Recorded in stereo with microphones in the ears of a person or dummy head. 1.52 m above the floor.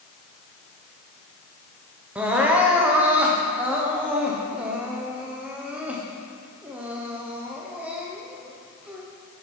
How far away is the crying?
About 0.7 m.